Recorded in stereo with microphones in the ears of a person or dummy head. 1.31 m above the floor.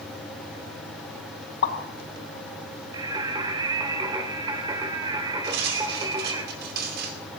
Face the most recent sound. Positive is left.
turn(degrees=-60)  # may be behind; listen again after turning